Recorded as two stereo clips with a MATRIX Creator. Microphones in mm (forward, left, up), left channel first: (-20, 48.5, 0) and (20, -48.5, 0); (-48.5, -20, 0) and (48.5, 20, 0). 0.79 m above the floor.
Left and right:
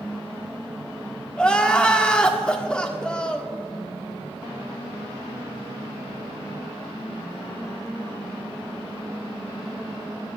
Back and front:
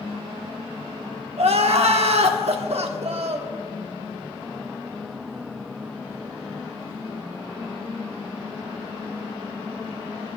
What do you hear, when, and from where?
1.4 s crying: 30° left, 1.1 m